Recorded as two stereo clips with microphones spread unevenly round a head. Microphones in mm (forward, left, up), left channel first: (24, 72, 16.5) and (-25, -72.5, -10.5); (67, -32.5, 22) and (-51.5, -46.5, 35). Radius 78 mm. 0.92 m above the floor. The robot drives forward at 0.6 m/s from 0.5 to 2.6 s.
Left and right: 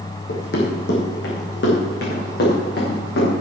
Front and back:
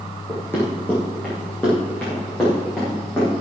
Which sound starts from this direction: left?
Running footsteps, at 0.3 s.